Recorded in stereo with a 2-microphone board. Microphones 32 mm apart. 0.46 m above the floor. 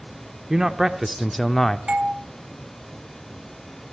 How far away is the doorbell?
About 1.5 m.